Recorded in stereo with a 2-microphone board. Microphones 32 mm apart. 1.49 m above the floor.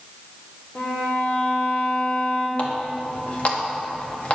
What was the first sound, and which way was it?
A violin, 40° left (ahead or behind).